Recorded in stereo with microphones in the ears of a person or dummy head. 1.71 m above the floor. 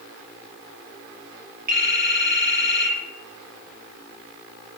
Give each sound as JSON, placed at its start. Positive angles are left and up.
{"t": 1.7, "sound": "a phone ringing", "side_deg": -40, "distance_m": 4.0}